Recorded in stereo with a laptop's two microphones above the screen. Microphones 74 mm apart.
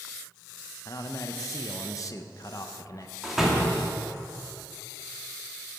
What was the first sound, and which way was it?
A man speaking, 45° left (ahead or behind).